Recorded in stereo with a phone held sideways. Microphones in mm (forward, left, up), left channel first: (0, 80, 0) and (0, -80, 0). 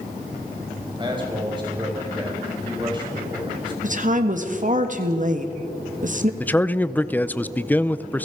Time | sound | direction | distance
1.0 | a man speaking | 30° right (ahead or behind) | 5 m
3.8 | a woman speaking | 55° right (ahead or behind) | 1.7 m
6.4 | a man speaking | 10° left (ahead or behind) | 0.6 m